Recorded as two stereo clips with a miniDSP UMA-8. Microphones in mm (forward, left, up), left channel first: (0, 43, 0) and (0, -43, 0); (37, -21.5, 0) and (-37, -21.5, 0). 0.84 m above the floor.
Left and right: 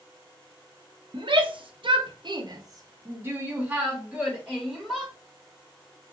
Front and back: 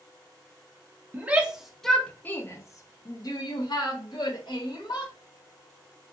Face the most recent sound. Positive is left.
turn(degrees=-5)